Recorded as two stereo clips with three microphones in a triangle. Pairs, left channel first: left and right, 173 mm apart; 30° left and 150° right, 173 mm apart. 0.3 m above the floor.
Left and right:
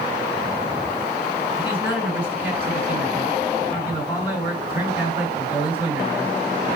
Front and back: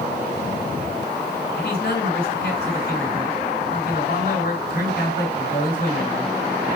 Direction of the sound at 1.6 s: 30° left.